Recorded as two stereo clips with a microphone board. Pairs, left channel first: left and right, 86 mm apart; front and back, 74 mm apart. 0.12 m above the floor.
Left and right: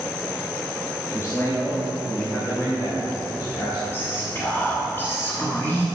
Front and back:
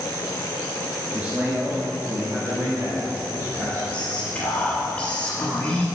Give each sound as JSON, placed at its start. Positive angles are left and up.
{"t": 1.1, "sound": "a man speaking", "azimuth_deg": 120, "distance_m": 1.4}
{"t": 3.9, "sound": "whispering", "azimuth_deg": 60, "distance_m": 1.2}